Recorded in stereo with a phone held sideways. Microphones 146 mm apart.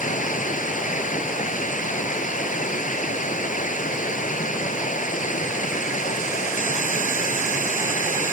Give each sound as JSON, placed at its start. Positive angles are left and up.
{"t": 0.0, "sound": "running water", "side_deg": 60}